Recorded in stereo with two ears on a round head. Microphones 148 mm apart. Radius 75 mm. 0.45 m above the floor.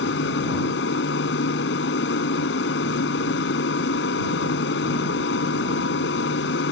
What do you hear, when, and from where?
0.0 s an aircraft: 70° left (ahead or behind)